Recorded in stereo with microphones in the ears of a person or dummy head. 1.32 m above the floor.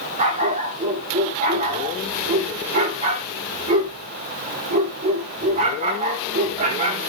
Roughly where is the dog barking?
Right.